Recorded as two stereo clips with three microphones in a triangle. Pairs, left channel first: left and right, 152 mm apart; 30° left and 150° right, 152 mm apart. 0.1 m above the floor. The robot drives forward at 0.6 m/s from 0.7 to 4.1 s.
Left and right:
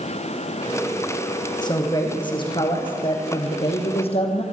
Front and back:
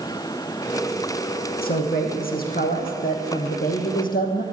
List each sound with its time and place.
1.6 s a man speaking: 30° left, 4.5 m; by 4.4 s 45° left, 3.5 m